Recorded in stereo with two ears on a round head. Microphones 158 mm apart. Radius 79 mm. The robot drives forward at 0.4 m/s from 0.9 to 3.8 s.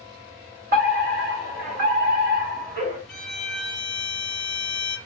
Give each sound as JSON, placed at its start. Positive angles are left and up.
{"t": 0.7, "sound": "a fire alarm", "side_deg": -55, "distance_m": 3.0}
{"t": 3.1, "sound": "a violin", "side_deg": 5, "distance_m": 1.3}